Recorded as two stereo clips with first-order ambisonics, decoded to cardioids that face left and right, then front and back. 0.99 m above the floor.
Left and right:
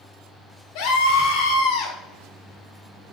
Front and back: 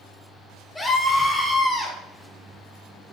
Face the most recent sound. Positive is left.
turn(degrees=105)